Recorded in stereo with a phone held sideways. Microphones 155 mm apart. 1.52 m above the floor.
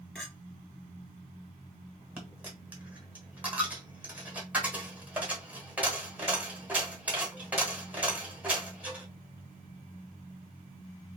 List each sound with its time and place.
0.1 s a clink: 5° left (ahead or behind), 2 m
2.2 s a dropped coin: 10° right (ahead or behind), 1.3 m